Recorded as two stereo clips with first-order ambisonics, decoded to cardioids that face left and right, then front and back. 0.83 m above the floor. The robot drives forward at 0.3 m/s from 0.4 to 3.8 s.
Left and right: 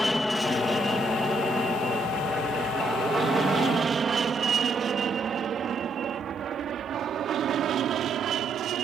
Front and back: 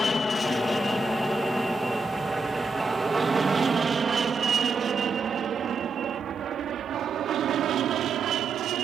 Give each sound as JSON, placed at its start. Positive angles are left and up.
{"t": 0.0, "sound": "an aircraft", "azimuth_deg": 10}